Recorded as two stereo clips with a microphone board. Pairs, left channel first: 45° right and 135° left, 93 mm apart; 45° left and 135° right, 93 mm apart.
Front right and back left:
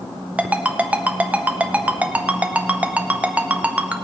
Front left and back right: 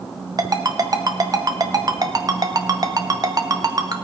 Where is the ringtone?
155° right, 0.7 m.